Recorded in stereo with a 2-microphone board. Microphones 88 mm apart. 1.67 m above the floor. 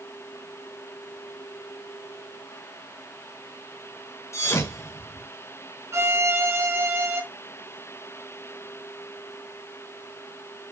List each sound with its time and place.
4.3 s a thud: 30° left (ahead or behind), 1.6 m
5.9 s a violin: 35° right (ahead or behind), 1.5 m